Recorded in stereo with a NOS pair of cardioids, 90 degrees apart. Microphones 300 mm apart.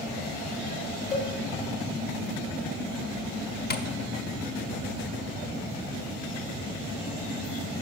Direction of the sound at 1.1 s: 25° left.